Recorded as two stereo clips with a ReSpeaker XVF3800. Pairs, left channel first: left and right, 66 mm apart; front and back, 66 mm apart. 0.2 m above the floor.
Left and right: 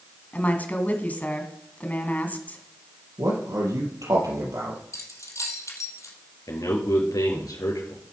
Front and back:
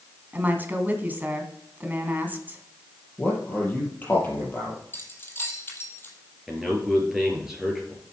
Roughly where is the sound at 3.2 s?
Ahead right.